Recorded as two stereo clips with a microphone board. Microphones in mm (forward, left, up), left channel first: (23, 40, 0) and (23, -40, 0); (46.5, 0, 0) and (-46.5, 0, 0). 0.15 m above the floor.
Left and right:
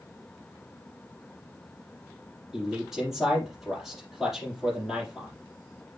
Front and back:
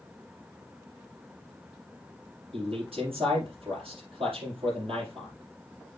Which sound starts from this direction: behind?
A man speaking, at 2.5 s.